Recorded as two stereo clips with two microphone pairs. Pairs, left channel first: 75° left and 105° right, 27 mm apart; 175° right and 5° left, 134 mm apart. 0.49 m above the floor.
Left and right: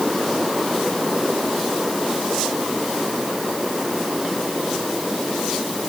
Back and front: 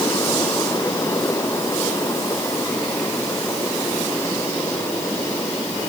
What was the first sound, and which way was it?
Only background noise.